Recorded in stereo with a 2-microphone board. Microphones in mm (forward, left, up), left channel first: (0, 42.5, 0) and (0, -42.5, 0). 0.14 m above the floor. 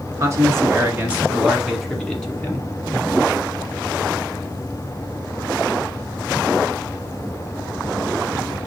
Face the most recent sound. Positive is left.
turn(degrees=20)  # may be behind; listen again after turning